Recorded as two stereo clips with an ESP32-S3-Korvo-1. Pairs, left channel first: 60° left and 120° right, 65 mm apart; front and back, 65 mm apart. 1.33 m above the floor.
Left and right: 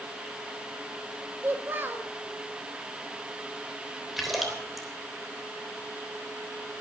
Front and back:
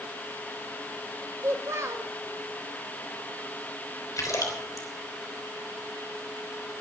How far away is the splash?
About 3.5 m.